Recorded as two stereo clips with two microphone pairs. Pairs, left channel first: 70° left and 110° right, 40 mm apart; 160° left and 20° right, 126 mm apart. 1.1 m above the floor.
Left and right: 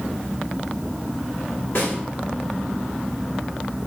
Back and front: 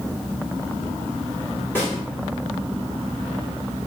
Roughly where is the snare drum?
Left.